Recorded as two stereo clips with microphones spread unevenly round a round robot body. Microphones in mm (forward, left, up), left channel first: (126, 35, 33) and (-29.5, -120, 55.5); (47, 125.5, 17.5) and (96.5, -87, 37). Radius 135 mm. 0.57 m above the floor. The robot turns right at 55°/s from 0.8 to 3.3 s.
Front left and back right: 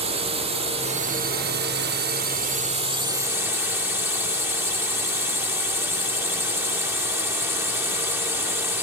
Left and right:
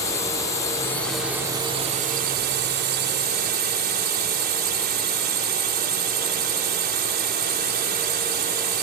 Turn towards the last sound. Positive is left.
turn(degrees=-55)